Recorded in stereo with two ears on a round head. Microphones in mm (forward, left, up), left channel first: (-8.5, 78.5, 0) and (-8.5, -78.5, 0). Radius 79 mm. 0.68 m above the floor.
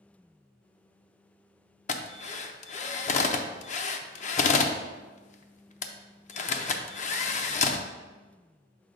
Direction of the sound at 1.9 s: 45° left (ahead or behind).